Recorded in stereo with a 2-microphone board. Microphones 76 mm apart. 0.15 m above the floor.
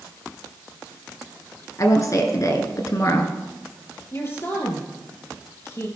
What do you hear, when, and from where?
1.8 s a woman speaking: 45° left (ahead or behind), 1.7 m
4.1 s a woman speaking: 35° left (ahead or behind), 3 m